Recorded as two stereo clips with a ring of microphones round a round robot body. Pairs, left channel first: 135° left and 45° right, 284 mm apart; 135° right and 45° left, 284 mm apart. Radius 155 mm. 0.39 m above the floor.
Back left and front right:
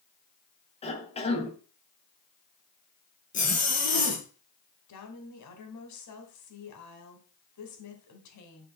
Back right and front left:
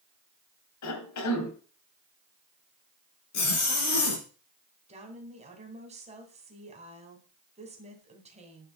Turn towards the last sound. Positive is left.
turn(degrees=115)